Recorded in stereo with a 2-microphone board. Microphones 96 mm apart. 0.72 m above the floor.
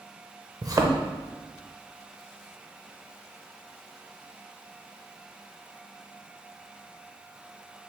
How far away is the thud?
About 0.5 m.